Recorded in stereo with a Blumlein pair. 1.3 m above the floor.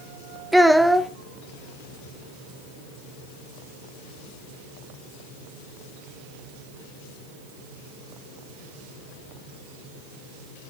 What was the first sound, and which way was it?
A child speaking, straight ahead.